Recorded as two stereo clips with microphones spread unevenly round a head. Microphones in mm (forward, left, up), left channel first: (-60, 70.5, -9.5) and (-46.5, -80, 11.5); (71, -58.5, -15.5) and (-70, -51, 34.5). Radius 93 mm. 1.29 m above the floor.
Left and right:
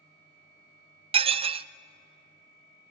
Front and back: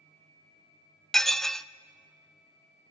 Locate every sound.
1.1 s dishes clattering: 110° right, 0.6 m